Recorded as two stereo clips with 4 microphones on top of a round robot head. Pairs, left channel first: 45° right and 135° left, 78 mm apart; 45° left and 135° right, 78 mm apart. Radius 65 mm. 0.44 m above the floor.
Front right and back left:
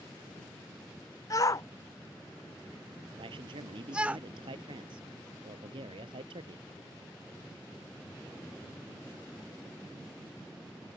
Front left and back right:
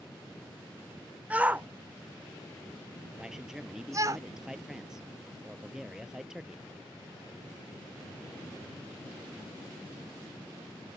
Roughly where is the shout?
Ahead right.